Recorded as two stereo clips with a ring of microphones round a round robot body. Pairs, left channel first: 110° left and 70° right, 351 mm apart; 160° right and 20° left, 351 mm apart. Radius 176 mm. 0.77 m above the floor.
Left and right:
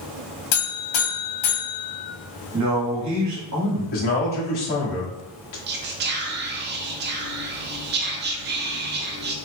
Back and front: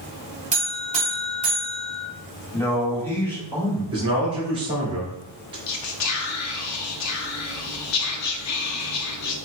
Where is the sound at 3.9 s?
100° left, 1.4 m.